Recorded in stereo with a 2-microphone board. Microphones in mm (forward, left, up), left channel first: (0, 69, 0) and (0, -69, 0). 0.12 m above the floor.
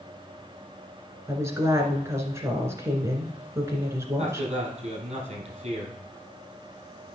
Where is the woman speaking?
20° right (ahead or behind), 1.6 m.